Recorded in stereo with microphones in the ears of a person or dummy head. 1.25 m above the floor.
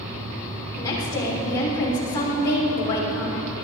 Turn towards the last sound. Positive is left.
turn(degrees=25)  # may be behind; listen again after turning